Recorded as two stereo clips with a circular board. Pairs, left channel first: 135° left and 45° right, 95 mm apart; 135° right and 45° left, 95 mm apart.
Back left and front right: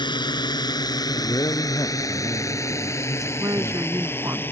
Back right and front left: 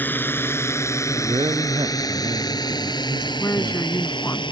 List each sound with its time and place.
0.0 s a drone: 160° left; by 4.5 s 160° right
1.1 s a man speaking: 85° left
3.4 s a woman speaking: 85° right